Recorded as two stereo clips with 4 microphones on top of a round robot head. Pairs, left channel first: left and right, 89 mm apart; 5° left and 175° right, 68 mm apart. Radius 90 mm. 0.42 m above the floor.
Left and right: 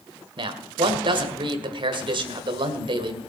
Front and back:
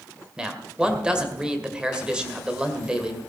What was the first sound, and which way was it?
A man speaking, 100° right.